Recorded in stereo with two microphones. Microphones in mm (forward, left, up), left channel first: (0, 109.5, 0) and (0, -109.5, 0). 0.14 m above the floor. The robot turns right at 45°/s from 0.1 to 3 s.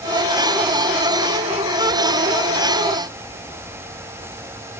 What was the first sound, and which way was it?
Only background noise.